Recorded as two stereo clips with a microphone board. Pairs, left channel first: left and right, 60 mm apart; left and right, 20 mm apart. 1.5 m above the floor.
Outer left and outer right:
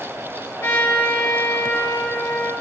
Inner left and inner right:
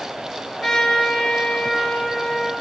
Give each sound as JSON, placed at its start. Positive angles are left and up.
{"t": 0.6, "sound": "a trumpet", "side_deg": 45, "distance_m": 1.4}